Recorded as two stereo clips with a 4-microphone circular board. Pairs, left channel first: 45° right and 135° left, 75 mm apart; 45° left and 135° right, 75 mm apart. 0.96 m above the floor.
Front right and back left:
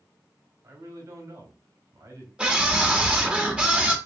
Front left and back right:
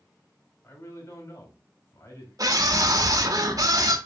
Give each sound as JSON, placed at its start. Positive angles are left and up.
{"t": 0.6, "sound": "a man speaking", "azimuth_deg": 90, "distance_m": 2.5}
{"t": 2.4, "sound": "a scream", "azimuth_deg": -155, "distance_m": 1.3}